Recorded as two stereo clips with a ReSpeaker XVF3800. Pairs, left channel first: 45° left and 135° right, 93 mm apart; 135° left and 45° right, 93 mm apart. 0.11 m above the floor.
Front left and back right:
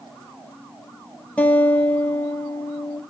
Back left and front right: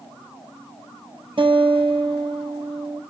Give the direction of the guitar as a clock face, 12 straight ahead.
1 o'clock.